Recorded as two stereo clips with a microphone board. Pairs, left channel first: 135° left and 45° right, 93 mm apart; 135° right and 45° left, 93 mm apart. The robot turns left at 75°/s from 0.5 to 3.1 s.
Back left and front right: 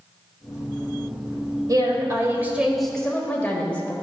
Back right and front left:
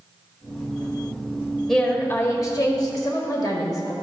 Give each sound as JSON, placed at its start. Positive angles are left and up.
{"t": 1.7, "sound": "a woman speaking", "azimuth_deg": -50, "distance_m": 1.4}